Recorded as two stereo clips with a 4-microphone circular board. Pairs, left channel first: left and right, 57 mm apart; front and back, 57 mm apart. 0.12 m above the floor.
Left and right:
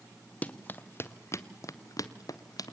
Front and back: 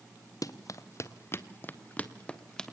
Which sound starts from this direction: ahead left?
Running footsteps, at 0.4 s.